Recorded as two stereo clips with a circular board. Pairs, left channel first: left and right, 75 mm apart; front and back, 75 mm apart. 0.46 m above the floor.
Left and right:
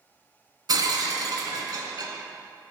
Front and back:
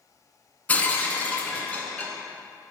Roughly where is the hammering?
I don't hear hammering.